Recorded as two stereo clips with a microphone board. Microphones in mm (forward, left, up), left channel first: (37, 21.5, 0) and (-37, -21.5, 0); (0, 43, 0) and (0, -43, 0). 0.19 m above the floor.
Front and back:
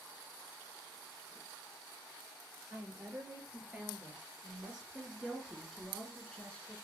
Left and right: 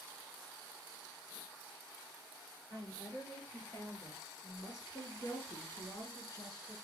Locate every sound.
2.7 s a woman speaking: 145° left, 4 m; by 6.8 s 95° left, 2.0 m